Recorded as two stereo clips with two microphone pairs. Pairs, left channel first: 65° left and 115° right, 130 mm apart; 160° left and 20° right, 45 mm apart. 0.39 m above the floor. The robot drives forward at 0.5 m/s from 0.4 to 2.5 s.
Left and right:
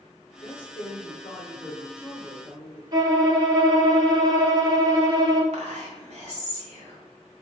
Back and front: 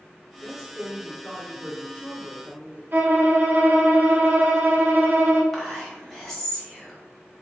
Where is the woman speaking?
50° left, 1.1 m; by 2.8 s 140° left, 1.2 m.